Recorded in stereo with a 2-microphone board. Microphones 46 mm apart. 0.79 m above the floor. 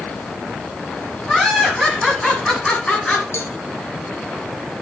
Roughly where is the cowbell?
Left.